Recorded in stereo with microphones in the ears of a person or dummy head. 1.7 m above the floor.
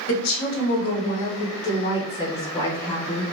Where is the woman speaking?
65° left (ahead or behind), 1.4 m; by 3.2 s 5° left (ahead or behind), 1.9 m.